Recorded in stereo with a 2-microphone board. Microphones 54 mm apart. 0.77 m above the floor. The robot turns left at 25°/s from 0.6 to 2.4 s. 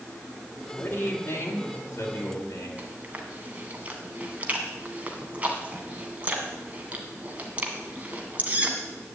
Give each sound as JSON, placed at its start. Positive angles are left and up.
{"t": 0.8, "sound": "a man speaking", "azimuth_deg": 130, "distance_m": 3.5}
{"t": 2.8, "sound": "chewing", "side_deg": -30, "distance_m": 2.0}